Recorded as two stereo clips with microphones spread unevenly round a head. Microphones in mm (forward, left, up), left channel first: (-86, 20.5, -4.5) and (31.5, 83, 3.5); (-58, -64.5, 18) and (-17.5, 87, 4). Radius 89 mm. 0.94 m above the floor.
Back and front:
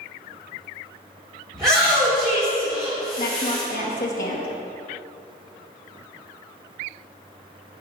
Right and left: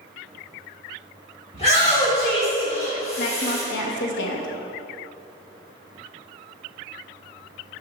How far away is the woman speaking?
About 0.8 m.